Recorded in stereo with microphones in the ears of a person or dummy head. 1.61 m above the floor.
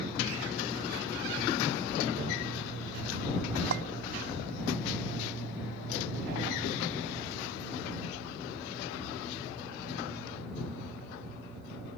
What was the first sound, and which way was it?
A clink, 65° right (ahead or behind).